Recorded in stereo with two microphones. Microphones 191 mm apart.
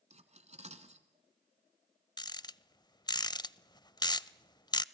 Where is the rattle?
20° left (ahead or behind), 0.5 m.